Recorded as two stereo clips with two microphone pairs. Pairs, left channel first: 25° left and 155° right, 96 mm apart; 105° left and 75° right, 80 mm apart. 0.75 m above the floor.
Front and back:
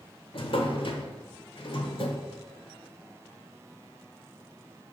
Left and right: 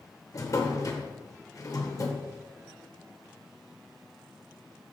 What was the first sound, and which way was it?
A drawer, 55° left.